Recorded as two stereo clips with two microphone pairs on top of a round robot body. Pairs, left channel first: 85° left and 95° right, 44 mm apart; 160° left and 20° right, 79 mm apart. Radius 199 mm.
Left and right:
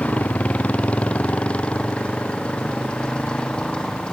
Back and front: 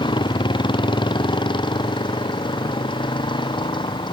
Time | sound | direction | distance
0.0 | a motorcycle | 145° left | ?